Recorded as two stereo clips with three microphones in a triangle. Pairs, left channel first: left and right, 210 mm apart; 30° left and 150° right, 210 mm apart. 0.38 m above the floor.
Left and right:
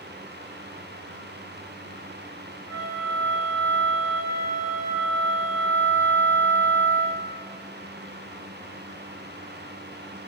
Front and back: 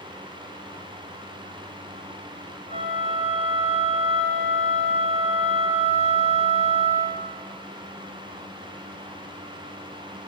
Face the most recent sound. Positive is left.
turn(degrees=-175)